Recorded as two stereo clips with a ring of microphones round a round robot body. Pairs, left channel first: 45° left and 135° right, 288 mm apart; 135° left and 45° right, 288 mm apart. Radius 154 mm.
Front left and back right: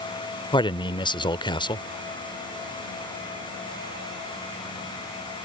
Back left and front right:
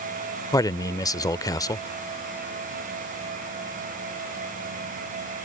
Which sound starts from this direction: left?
A man speaking, at 0.5 s.